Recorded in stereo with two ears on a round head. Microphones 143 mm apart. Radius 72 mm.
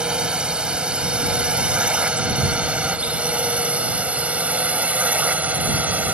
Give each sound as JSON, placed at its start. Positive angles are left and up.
{"t": 0.0, "sound": "a drone", "side_deg": -5}